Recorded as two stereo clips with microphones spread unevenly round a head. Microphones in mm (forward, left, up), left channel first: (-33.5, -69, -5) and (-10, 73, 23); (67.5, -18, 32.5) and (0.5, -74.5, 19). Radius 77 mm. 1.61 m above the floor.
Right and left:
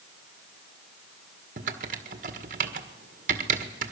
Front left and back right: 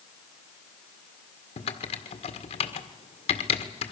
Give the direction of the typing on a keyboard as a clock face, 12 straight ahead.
11 o'clock.